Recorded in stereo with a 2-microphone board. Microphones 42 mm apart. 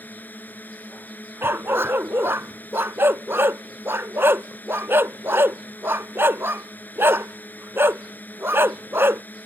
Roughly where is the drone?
Left.